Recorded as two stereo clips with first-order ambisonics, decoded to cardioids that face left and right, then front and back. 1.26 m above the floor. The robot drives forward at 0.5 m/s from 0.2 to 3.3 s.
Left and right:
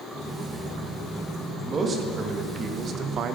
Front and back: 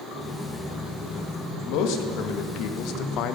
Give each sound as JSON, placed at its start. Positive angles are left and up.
{"t": 1.7, "sound": "a man speaking", "azimuth_deg": -20, "distance_m": 1.7}